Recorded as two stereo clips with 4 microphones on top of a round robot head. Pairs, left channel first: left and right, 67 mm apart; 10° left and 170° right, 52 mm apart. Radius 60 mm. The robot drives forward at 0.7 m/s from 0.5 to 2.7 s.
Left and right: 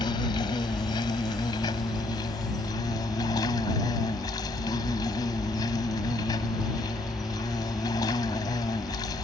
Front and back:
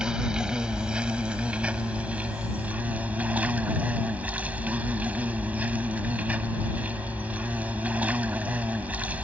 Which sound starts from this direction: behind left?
An insect, at 0.0 s.